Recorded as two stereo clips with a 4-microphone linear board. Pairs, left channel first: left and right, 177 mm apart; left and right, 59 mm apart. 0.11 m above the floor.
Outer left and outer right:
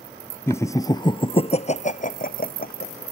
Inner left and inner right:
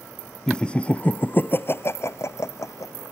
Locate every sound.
0.5 s laughter: 15° left (ahead or behind); by 2.9 s 60° left (ahead or behind)